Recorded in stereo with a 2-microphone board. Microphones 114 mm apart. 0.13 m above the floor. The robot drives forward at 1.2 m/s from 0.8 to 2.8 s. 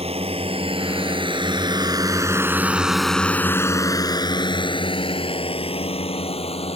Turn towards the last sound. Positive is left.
turn(degrees=65)  # may be behind; listen again after turning